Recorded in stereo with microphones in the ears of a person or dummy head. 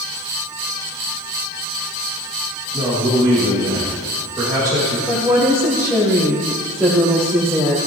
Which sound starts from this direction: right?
A man speaking, at 2.7 s.